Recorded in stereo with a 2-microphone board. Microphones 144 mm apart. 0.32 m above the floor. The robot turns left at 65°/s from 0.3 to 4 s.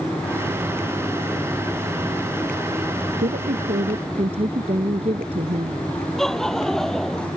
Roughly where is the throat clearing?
No throat clearing in this recording.